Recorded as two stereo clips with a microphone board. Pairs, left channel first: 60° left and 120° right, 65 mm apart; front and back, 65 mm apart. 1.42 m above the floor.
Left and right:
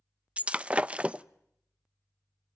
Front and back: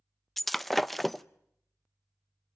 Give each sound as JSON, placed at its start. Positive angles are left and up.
{"t": 0.4, "sound": "breaking glass", "azimuth_deg": -85, "distance_m": 0.6}